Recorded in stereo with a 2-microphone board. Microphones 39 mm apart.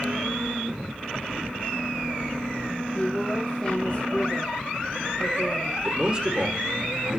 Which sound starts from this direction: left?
A woman speaking, at 3.0 s.